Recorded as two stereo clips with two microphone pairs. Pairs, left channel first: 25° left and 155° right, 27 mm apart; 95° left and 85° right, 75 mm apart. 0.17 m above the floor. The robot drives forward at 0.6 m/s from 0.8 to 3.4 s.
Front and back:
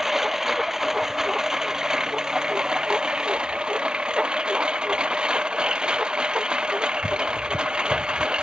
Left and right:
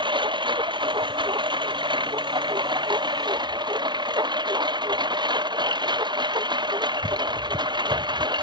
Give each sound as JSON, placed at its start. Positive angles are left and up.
{"t": 0.0, "sound": "a lawn mower", "azimuth_deg": -85}